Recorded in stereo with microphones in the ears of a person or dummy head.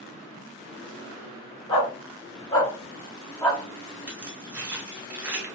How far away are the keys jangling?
About 0.8 m.